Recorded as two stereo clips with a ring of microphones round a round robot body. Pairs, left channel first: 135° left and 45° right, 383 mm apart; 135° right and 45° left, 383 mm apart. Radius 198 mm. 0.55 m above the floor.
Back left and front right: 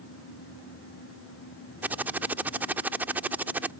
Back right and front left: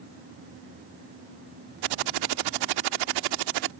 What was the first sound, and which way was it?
Typing on a keyboard, 40° left.